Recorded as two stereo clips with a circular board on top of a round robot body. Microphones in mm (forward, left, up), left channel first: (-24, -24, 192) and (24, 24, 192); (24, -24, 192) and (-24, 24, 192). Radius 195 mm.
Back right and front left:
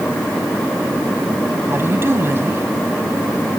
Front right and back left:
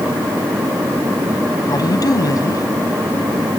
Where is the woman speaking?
10° right.